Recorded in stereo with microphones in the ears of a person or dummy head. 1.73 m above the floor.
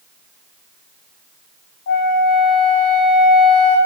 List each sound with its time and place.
1.9 s a flute: 45° left (ahead or behind), 0.8 m